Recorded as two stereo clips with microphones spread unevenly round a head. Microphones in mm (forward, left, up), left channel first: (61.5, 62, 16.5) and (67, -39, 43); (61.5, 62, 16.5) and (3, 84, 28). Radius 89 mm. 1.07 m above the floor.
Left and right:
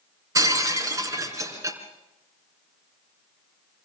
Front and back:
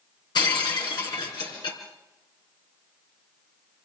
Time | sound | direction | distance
0.3 | breaking glass | 35° right | 3 m